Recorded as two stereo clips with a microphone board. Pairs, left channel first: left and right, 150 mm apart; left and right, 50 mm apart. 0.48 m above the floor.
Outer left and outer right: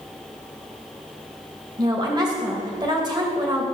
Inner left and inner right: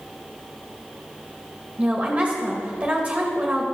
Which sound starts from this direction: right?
A woman speaking, at 1.8 s.